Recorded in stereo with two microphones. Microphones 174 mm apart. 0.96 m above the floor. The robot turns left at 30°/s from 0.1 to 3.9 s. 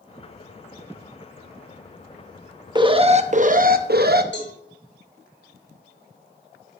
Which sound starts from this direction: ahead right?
An alarm, at 2.8 s.